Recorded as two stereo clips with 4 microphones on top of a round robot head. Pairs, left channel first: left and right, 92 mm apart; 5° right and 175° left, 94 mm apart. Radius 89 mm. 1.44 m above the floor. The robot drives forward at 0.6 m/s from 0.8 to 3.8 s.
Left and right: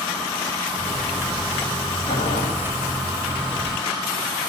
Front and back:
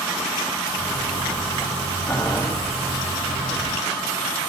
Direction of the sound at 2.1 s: 75° left.